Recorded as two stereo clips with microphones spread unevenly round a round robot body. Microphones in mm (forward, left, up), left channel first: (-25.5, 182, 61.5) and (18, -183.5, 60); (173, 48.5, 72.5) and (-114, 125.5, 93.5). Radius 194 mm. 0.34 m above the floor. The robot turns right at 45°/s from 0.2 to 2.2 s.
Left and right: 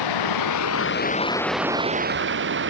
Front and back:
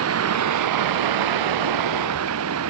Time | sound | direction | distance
0.0 | running water | 125° left | ?